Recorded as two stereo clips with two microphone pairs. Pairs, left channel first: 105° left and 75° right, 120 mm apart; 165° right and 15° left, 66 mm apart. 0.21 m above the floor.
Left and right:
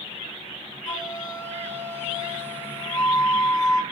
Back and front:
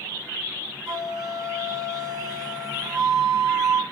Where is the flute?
55° left, 3.5 m.